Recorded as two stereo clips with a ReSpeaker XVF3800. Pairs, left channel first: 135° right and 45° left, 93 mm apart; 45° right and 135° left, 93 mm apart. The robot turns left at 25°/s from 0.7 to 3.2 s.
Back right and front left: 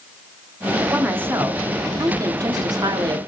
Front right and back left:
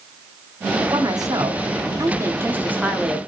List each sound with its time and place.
0.9 s a woman speaking: 115° left, 0.8 m; by 3.2 s 55° left, 0.8 m